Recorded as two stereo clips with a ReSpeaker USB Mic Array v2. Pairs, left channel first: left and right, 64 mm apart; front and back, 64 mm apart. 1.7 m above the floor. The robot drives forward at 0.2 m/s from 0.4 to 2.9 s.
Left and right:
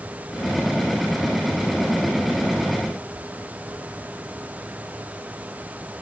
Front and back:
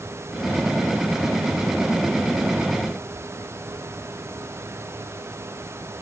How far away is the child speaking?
I don't hear a child speaking.